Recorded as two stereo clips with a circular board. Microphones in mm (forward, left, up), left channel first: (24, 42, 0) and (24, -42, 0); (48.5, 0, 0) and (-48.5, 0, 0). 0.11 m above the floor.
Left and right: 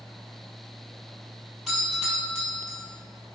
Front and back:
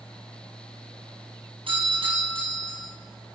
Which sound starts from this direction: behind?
A doorbell, at 1.7 s.